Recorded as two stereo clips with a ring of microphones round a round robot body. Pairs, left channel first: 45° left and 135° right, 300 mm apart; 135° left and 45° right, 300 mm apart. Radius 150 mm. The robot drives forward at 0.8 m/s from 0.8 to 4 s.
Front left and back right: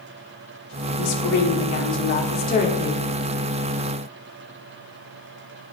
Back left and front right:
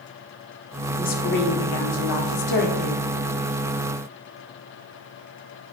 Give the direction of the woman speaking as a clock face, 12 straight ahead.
10 o'clock.